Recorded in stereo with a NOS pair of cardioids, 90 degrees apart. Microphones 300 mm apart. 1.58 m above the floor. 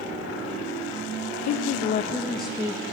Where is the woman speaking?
60° left, 0.7 m; by 2.8 s 15° right, 1.0 m.